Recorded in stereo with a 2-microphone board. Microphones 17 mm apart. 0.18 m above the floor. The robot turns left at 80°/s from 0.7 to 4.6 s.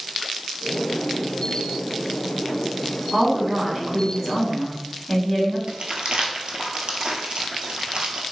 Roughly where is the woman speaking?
Ahead right.